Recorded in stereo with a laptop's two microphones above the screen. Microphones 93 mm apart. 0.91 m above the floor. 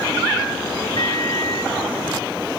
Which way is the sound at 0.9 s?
65° left (ahead or behind).